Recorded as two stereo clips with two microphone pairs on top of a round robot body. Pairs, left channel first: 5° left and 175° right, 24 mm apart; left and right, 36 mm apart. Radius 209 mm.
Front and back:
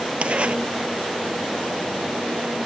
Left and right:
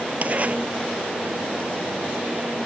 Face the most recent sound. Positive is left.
turn(degrees=-135)